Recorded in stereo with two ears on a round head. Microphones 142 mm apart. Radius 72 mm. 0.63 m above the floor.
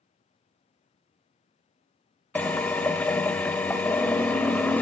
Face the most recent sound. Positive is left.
turn(degrees=10)  # may be behind; listen again after turning